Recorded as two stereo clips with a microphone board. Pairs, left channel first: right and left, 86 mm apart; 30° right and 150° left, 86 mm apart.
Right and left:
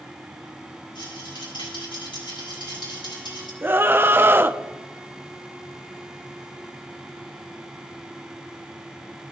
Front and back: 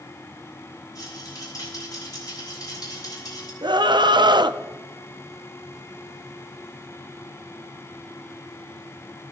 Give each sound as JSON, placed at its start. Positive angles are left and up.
{"t": 0.9, "sound": "a rattle", "azimuth_deg": -75, "distance_m": 6.0}
{"t": 3.6, "sound": "a scream", "azimuth_deg": 150, "distance_m": 0.7}